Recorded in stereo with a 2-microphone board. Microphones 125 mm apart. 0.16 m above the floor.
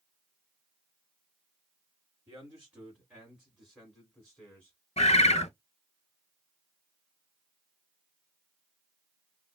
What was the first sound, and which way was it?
A man speaking, 20° right (ahead or behind).